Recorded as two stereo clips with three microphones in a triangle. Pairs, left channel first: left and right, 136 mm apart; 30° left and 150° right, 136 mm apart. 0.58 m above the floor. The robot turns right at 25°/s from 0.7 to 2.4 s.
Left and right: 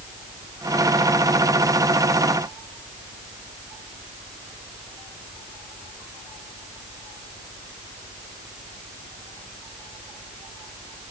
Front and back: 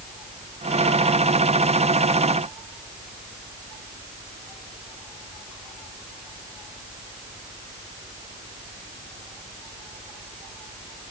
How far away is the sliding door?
I don't hear a sliding door.